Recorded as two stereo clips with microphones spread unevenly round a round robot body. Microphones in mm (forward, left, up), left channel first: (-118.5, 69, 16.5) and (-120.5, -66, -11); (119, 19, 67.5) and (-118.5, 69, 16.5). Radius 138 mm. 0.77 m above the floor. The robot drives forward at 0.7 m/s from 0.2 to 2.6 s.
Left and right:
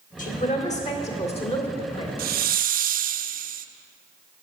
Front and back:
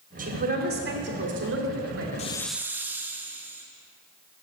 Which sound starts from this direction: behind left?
A man speaking, at 0.2 s.